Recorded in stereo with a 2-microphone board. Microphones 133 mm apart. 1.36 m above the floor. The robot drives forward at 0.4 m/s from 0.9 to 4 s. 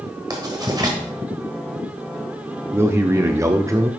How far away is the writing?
About 1.4 m.